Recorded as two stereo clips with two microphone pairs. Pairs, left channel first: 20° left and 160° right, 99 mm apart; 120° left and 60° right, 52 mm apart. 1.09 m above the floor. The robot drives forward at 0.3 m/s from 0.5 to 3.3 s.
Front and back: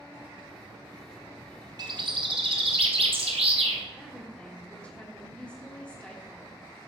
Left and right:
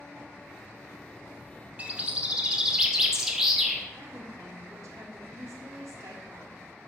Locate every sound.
1.8 s a bird: 120° right, 0.7 m; by 3.9 s 140° right, 1.0 m
4.0 s a woman speaking: 55° right, 1.6 m